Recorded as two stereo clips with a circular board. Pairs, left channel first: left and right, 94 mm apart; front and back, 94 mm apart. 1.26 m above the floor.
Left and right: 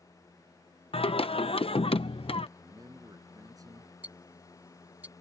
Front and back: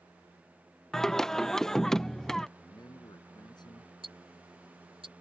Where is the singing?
85° left.